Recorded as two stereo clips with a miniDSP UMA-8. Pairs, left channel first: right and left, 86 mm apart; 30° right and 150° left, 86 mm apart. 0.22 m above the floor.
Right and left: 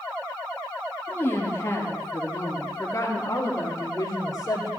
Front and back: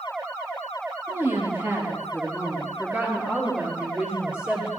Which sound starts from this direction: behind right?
A woman speaking, at 1.1 s.